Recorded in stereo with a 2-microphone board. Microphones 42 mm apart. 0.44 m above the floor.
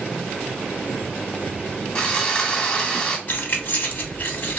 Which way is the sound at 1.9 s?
20° left (ahead or behind).